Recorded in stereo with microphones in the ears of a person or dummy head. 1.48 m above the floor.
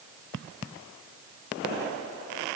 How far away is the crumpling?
No crumpling in this recording.